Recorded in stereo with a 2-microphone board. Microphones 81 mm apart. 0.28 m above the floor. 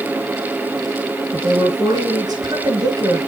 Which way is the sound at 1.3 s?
70° right (ahead or behind).